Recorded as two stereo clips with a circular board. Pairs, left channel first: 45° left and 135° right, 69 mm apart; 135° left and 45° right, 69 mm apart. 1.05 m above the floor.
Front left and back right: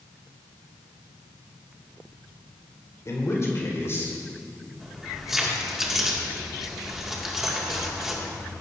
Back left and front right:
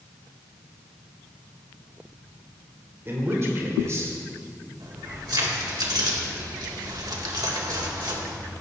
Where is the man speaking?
5° left, 3.5 m; by 4.7 s 5° right, 6 m.